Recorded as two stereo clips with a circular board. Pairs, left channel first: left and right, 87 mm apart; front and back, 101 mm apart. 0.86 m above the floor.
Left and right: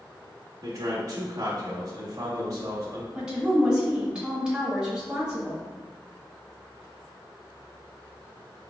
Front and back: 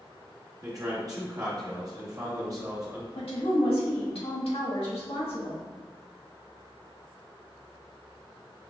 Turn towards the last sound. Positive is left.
turn(degrees=-10)